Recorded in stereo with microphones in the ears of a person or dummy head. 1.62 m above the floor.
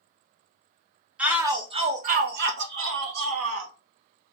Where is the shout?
5° right (ahead or behind), 0.9 m; by 3.7 s 85° right, 1.5 m.